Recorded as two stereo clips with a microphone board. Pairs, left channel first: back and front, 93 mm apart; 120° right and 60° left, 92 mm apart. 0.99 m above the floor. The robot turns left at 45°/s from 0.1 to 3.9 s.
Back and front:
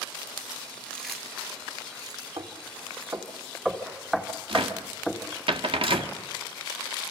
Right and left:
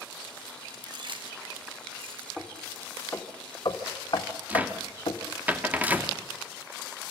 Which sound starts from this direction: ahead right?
Knocking, at 2.4 s.